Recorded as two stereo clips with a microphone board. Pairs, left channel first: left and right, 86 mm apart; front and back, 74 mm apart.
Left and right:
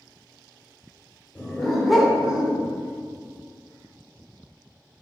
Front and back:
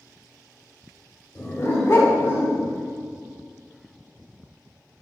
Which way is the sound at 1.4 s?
15° left.